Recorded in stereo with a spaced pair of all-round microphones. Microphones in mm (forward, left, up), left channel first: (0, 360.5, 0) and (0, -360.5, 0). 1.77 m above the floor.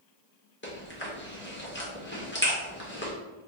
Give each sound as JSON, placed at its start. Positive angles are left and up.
{"t": 0.6, "sound": "chewing", "side_deg": 15, "distance_m": 1.0}